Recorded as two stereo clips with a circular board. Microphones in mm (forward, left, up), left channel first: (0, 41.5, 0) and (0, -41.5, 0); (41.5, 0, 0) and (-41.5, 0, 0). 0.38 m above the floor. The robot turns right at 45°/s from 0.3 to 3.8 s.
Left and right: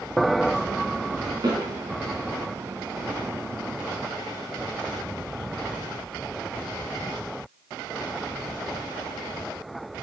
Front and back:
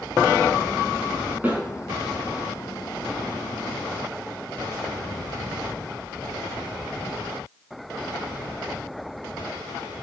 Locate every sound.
1.4 s a snare drum: 110° right, 4.5 m; by 1.6 s 105° right, 4.5 m